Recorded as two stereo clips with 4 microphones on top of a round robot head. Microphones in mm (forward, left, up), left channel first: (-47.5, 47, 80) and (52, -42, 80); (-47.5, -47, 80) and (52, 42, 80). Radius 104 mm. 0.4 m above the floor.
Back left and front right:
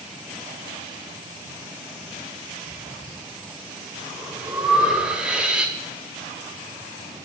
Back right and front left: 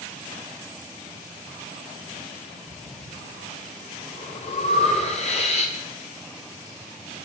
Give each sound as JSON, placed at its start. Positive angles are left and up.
{"t": 2.7, "sound": "breathing", "azimuth_deg": -125, "distance_m": 2.0}